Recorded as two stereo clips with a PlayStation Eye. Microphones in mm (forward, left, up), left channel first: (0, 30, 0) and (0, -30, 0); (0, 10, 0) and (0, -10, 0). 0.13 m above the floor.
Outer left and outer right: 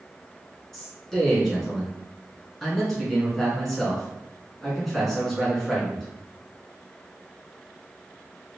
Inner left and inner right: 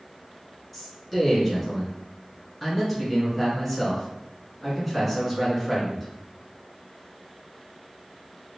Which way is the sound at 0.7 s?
5° left (ahead or behind).